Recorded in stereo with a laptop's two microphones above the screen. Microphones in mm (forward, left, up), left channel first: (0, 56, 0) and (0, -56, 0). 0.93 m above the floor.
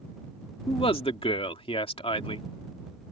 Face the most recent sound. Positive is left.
turn(degrees=55)  # may be behind; listen again after turning